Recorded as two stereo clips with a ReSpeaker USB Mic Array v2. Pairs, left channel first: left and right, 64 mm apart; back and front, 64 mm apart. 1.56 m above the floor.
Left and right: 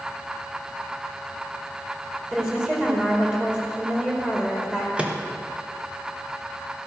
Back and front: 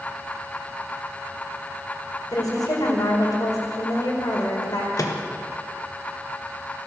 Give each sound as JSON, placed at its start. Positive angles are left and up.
{"t": 2.3, "sound": "a woman speaking", "azimuth_deg": -165, "distance_m": 5.0}
{"t": 5.0, "sound": "a microwave", "azimuth_deg": -160, "distance_m": 1.5}